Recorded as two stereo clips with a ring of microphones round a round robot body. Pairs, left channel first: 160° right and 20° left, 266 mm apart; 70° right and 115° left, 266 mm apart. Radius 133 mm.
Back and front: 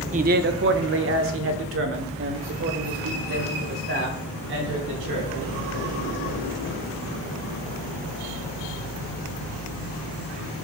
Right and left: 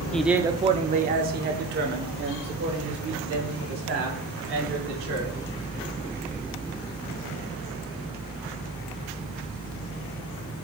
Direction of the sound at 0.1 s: 15° left.